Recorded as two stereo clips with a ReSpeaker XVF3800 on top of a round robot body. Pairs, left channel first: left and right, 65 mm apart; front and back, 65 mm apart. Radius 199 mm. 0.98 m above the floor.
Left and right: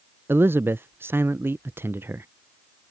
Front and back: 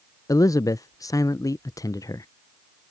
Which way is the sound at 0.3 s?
35° right.